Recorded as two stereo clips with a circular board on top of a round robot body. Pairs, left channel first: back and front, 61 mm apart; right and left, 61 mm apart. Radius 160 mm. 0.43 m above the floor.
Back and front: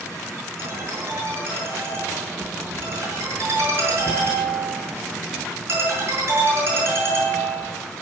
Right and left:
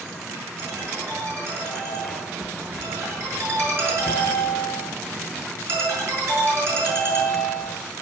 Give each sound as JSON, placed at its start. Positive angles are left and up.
{"t": 0.6, "sound": "a ringtone", "azimuth_deg": 45, "distance_m": 7.5}